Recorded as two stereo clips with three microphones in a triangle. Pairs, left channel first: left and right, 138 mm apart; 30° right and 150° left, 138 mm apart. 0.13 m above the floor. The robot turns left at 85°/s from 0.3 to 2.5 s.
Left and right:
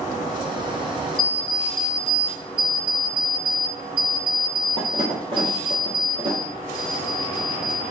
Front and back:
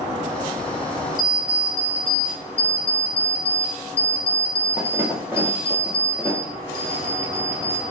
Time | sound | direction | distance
1.2 | an alarm clock | 25° right | 1.3 m